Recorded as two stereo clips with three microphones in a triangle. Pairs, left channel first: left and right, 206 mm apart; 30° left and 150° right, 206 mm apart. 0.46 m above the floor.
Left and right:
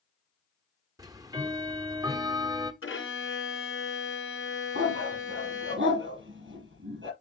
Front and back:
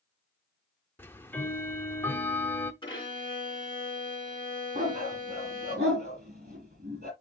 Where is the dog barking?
110° right, 5.5 m.